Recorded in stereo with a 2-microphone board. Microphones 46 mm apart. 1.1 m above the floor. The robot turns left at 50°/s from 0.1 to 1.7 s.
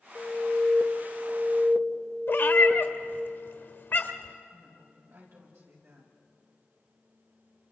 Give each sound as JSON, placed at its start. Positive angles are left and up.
{"t": 0.1, "sound": "an alarm", "azimuth_deg": 15, "distance_m": 2.0}
{"t": 2.3, "sound": "a cat meowing", "side_deg": 60, "distance_m": 1.4}
{"t": 4.5, "sound": "a woman speaking", "side_deg": -80, "distance_m": 7.0}